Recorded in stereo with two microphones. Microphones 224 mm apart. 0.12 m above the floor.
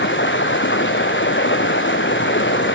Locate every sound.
0.0 s running water: 60° left (ahead or behind), 0.8 m